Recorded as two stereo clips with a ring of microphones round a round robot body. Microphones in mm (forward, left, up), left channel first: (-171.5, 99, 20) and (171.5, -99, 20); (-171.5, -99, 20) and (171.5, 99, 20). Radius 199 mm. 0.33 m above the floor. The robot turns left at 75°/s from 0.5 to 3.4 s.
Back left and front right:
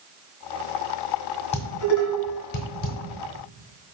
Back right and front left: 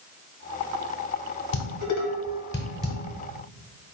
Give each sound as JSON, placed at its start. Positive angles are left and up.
{"t": 1.5, "sound": "dishes clattering", "azimuth_deg": -155, "distance_m": 1.0}